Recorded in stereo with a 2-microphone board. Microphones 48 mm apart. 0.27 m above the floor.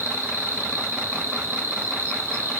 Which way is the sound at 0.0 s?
70° right (ahead or behind).